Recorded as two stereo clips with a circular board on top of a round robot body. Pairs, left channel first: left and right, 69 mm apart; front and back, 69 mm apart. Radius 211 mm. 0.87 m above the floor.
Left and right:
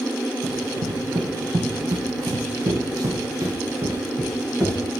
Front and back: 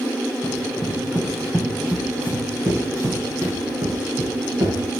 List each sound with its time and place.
0.4 s running footsteps: 75° right, 2.5 m; by 4.8 s 150° right, 3 m